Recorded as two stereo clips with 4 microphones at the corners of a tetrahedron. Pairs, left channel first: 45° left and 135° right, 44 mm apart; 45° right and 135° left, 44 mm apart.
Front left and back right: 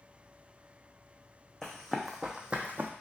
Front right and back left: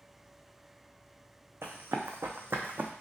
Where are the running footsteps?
125° left, 0.8 m; by 2.9 s straight behind, 0.6 m.